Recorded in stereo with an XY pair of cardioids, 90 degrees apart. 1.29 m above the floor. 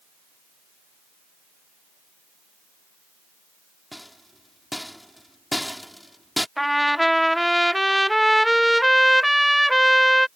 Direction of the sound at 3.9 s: 5° left.